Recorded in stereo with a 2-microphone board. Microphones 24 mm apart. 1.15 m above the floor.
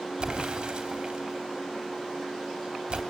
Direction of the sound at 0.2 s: 45° right (ahead or behind).